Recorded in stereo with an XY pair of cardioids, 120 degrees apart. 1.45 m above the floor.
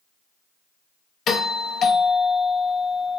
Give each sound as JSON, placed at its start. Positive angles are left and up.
{"t": 1.3, "sound": "a doorbell", "azimuth_deg": 50, "distance_m": 0.7}